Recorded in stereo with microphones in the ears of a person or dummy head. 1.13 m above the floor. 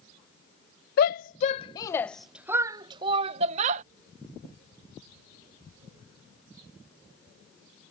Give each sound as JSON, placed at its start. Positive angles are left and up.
{"t": 1.0, "sound": "a shout", "side_deg": 60}